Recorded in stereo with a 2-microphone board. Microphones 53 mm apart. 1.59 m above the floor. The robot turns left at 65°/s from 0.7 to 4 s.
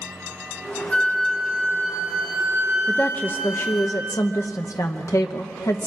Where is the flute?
20° left, 7.5 m; by 3.9 s 170° right, 7.5 m.